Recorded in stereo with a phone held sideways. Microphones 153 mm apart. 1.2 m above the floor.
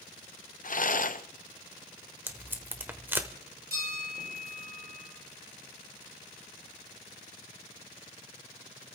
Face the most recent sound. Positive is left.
turn(degrees=-85)